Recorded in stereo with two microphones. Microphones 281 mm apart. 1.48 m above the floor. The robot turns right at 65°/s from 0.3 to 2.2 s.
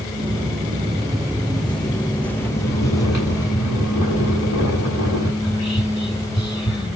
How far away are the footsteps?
About 1.8 m.